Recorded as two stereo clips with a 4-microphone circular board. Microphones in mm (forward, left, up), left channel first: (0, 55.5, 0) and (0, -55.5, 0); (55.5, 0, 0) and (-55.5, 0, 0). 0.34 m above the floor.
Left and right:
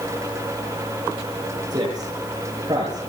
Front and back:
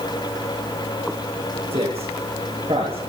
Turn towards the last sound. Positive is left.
turn(degrees=-145)